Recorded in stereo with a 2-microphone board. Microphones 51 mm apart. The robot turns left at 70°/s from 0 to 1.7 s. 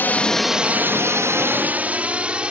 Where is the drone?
40° left (ahead or behind); by 2.5 s 20° right (ahead or behind).